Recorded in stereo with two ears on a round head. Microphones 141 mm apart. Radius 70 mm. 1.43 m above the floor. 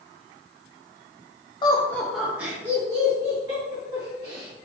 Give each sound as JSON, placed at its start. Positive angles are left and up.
{"t": 1.6, "sound": "laughter", "side_deg": 25, "distance_m": 0.6}